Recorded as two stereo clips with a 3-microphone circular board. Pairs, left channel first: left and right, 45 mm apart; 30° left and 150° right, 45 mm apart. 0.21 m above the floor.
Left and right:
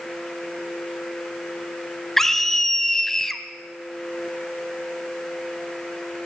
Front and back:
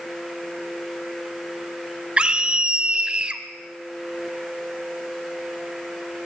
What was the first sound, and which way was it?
A scream, 165° left.